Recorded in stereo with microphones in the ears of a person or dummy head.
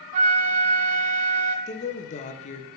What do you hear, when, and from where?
0.1 s a flute: 35° right (ahead or behind), 0.6 m
1.7 s a woman speaking: 30° left (ahead or behind), 0.8 m